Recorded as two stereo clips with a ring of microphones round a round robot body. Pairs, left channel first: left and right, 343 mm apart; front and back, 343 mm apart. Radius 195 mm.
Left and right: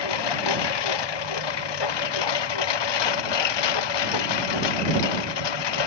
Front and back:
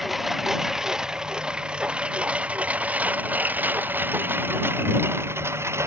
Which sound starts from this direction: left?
A lawn mower, at 0.0 s.